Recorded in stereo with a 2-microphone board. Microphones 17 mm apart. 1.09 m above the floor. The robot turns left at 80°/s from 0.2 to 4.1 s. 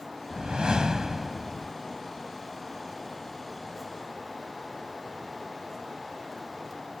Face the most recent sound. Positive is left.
turn(degrees=-10)